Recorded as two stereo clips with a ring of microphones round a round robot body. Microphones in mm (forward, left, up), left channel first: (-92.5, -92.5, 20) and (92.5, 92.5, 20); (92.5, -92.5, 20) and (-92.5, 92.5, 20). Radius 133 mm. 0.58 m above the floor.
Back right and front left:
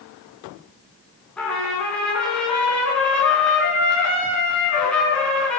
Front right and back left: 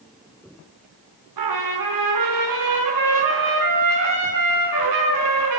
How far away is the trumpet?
About 4 m.